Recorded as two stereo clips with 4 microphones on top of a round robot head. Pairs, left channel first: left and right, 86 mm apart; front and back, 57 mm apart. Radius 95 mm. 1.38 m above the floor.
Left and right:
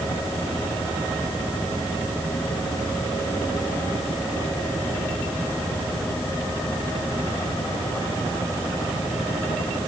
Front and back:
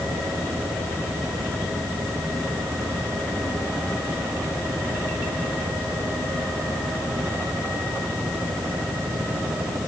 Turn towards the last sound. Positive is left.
No sound to turn to.